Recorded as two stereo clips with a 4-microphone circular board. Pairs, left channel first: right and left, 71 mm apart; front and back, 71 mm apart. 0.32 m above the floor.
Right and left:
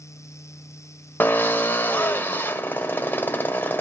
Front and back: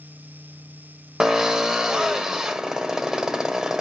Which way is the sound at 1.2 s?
105° right.